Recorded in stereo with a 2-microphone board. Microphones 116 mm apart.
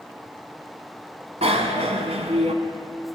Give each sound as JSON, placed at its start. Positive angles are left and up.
{"t": 1.4, "sound": "a bicycle bell", "side_deg": -65, "distance_m": 2.0}